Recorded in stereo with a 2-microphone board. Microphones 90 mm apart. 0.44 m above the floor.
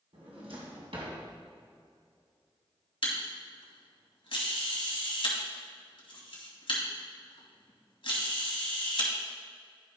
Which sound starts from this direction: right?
A drawer, at 0.1 s.